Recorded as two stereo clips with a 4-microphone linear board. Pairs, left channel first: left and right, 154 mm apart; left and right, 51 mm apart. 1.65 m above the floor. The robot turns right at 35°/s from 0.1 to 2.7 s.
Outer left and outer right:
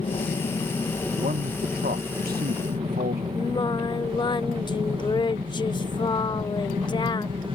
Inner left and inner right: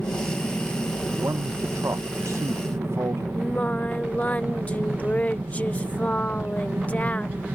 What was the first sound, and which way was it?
An aircraft, 130° left.